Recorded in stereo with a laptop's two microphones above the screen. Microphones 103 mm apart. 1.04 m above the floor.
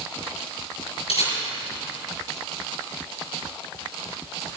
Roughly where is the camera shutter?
Left.